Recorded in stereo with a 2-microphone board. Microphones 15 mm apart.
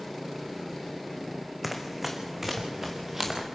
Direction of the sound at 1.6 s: 10° right (ahead or behind).